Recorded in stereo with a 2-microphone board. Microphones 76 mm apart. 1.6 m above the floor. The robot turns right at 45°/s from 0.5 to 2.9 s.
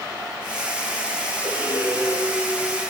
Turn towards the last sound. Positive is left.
turn(degrees=-90)